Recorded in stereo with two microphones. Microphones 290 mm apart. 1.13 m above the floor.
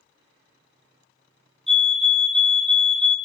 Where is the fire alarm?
Centre (ahead or behind), 1.0 m.